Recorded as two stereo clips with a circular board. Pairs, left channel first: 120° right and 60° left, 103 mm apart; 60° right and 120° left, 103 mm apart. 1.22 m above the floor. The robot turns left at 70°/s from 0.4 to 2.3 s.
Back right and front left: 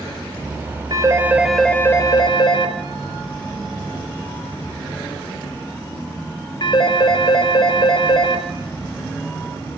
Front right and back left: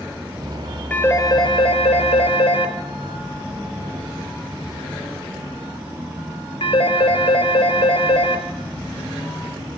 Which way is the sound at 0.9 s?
15° left.